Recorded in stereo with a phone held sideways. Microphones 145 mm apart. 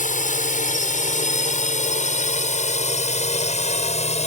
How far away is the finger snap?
No finger snap in this recording.